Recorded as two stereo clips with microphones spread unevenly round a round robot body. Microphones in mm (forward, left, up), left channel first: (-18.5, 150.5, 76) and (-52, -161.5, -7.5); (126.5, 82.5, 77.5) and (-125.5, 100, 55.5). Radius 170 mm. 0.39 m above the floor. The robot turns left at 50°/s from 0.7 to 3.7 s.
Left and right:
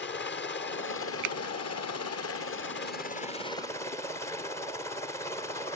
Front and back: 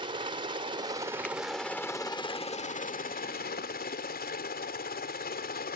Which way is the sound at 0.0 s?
135° left.